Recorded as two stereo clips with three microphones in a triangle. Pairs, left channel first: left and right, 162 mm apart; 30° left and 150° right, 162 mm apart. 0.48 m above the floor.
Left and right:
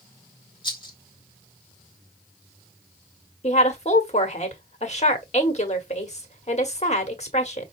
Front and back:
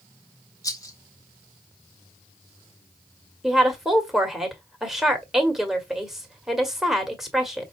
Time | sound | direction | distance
0.6 | a rattle | 75° left | 1.5 m
3.4 | a woman speaking | 125° left | 1.6 m